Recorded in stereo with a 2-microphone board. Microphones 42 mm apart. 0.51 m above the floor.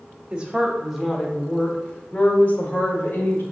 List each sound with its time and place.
0.3 s a woman speaking: 25° right (ahead or behind), 1.1 m; by 3.4 s 55° left (ahead or behind), 1.7 m